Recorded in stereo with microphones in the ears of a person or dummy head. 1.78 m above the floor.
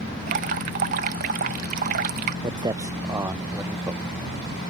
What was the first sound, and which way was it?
Dripping, 40° right (ahead or behind).